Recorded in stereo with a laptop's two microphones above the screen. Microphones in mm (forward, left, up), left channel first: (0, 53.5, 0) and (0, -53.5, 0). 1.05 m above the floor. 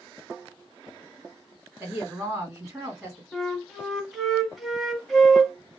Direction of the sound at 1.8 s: 20° right (ahead or behind).